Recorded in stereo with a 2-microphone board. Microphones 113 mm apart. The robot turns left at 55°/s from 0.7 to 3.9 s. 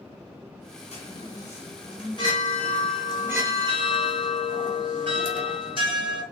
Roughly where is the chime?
Behind left.